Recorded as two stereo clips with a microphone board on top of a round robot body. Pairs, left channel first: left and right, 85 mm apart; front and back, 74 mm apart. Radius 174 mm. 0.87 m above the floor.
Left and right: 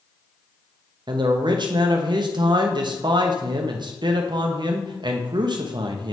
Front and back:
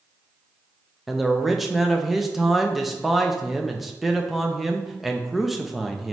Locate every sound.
1.1 s a man speaking: 90° right, 0.7 m